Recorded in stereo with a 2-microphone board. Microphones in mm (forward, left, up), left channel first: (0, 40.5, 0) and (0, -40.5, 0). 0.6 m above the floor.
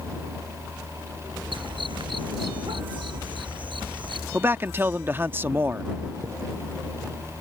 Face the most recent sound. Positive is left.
turn(degrees=-70)  # may be behind; listen again after turning